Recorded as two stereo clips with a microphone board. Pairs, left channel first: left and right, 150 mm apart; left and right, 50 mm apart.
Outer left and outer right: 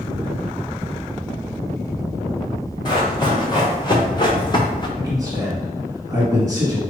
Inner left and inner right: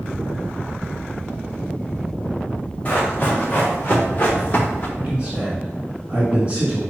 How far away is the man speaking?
About 1.5 m.